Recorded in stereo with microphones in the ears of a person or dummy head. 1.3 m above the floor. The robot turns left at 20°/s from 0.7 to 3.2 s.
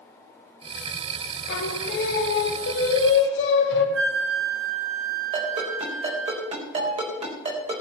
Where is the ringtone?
35° right (ahead or behind), 4 m.